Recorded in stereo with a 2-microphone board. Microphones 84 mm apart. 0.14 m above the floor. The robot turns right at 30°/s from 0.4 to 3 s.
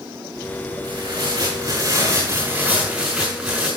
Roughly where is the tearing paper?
Right.